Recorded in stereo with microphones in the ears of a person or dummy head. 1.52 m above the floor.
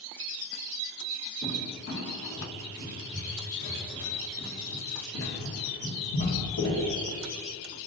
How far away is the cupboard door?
About 1.4 m.